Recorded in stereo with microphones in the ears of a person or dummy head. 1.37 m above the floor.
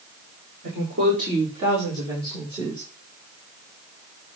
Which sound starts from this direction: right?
A woman speaking, at 0.6 s.